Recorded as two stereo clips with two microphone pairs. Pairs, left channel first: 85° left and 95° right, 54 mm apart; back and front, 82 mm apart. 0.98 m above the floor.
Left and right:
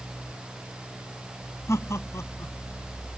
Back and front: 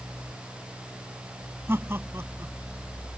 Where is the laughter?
60° left.